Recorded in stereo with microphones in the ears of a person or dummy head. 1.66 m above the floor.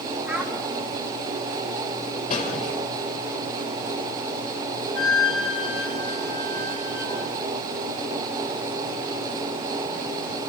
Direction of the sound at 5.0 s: 20° left (ahead or behind).